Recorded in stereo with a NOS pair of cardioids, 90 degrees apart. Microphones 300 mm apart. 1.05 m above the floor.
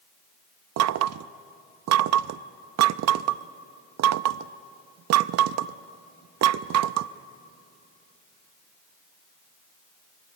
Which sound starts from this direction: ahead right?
Knocking, at 0.8 s.